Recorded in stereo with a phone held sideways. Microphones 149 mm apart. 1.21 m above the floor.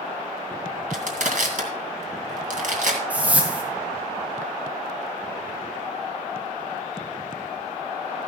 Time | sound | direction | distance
0.9 | crushing | 65° right (ahead or behind) | 2 m
3.1 | a whoosh | 10° right (ahead or behind) | 2 m